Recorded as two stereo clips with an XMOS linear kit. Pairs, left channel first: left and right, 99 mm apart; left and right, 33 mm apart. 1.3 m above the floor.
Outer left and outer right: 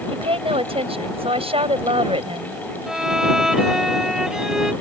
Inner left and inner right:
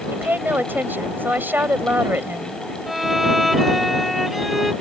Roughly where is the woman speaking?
Right.